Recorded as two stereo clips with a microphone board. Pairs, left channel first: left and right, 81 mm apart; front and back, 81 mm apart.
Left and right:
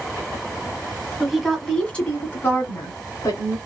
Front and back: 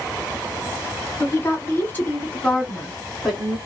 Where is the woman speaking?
5° right, 1.3 m; by 3.6 s 85° left, 1.7 m.